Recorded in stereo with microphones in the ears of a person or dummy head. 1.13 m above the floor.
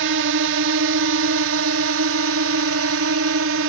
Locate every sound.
0.0 s a drone: 65° right (ahead or behind)